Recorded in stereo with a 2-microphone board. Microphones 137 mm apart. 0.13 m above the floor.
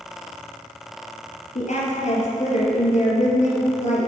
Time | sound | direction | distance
1.6 | a woman speaking | 60° left (ahead or behind) | 2.5 m